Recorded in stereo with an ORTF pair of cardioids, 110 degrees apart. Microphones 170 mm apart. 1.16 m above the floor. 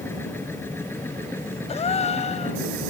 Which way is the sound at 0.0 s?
15° left.